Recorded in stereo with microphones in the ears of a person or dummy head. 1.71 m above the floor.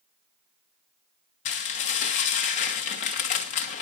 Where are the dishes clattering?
40° left (ahead or behind), 1.2 m.